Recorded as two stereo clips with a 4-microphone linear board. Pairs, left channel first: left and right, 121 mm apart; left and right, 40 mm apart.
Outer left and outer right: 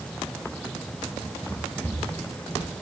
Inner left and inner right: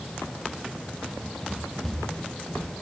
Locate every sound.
1.1 s running footsteps: 10° left (ahead or behind), 7.5 m; by 2.7 s 25° left (ahead or behind), 7.5 m